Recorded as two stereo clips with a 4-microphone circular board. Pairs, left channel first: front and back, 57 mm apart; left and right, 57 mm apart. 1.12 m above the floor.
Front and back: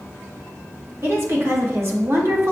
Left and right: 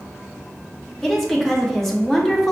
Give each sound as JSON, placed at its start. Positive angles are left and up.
{"t": 1.0, "sound": "a woman speaking", "azimuth_deg": 170, "distance_m": 0.9}